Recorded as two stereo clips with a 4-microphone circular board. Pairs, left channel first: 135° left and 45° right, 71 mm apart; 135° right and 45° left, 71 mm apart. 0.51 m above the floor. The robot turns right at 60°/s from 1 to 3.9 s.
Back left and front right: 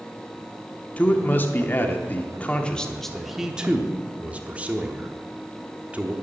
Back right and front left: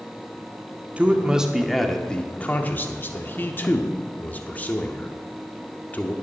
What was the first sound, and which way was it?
A man speaking, 90° left.